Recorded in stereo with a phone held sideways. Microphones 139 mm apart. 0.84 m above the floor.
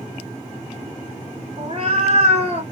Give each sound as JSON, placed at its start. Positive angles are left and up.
{"t": 1.6, "sound": "a cat meowing", "side_deg": -45, "distance_m": 1.1}